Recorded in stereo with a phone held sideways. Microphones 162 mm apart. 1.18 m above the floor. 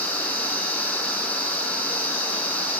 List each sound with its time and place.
0.0 s a machine running: 10° left (ahead or behind), 5 m